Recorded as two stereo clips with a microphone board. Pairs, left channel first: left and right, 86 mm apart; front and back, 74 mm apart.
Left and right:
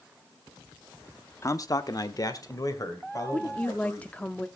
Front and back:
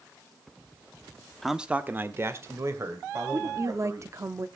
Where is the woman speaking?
155° left, 0.8 m.